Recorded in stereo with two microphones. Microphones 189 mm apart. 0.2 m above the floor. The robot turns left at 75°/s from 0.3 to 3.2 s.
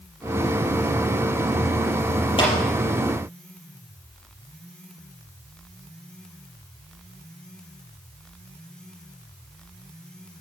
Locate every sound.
2.4 s a clap: 25° left (ahead or behind), 4.5 m; by 2.5 s 35° left (ahead or behind), 4.5 m